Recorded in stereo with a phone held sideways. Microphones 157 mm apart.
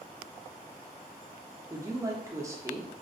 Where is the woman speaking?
20° right (ahead or behind), 0.6 m.